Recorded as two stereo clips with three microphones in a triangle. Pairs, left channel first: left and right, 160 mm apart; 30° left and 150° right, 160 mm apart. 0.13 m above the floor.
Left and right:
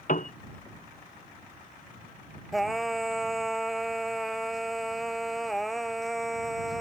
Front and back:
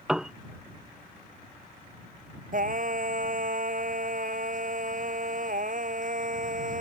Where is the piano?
125° left.